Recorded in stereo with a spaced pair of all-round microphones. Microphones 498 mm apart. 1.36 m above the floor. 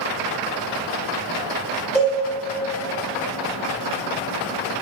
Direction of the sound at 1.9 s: Centre (ahead or behind).